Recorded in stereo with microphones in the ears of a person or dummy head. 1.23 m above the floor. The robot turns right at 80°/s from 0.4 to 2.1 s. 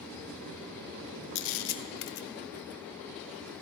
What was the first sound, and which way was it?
A camera shutter, 60° left (ahead or behind).